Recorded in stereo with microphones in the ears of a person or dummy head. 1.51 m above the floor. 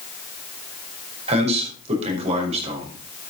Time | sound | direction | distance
1.3 | a man speaking | 35° right (ahead or behind) | 5.5 m